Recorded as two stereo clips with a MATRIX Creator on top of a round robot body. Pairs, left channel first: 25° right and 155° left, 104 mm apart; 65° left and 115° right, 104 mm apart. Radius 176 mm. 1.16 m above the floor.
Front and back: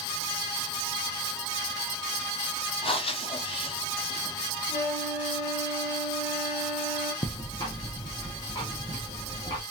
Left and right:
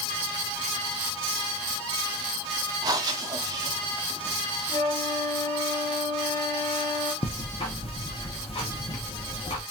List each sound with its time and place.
2.8 s breathing: 60° right, 1.0 m
4.7 s a flute: 20° left, 1.6 m
7.2 s ticking: 30° left, 0.8 m